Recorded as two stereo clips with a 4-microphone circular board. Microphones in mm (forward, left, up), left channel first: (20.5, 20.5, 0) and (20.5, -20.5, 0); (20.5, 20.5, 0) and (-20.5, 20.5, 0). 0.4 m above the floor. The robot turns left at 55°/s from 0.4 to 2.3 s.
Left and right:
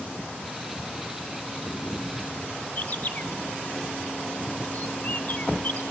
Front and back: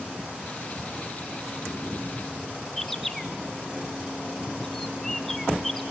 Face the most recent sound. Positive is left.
turn(degrees=80)